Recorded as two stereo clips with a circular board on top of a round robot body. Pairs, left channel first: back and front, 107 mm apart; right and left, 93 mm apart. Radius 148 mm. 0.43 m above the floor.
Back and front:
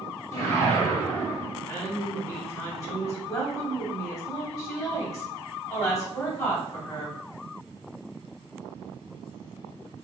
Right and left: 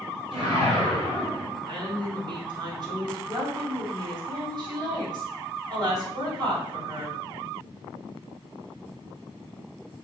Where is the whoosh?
120° left, 2.5 m.